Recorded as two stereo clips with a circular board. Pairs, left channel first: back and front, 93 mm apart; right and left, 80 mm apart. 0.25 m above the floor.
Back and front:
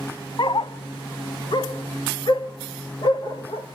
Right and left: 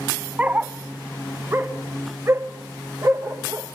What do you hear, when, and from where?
0.4 s a dog barking: 160° left, 0.6 m; by 3.7 s 145° left, 2 m